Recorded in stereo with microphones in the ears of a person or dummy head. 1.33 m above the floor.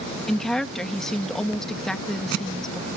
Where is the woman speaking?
Centre (ahead or behind).